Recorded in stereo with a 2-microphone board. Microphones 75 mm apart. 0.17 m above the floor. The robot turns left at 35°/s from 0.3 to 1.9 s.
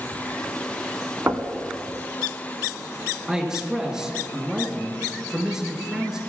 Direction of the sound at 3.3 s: 10° right (ahead or behind).